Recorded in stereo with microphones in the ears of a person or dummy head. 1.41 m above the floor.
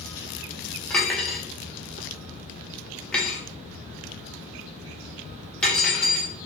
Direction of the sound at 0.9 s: 10° left (ahead or behind).